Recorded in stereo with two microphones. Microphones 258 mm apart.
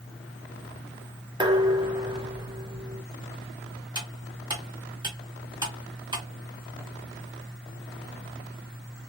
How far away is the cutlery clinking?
About 2 m.